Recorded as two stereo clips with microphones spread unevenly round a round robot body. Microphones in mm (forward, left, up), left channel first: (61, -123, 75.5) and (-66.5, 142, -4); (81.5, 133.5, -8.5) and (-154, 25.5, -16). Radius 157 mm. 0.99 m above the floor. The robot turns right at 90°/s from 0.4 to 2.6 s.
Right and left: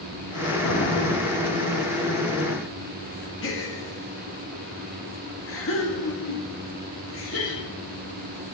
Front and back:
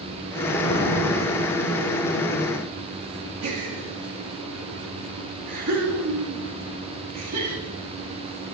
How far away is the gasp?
About 2.5 m.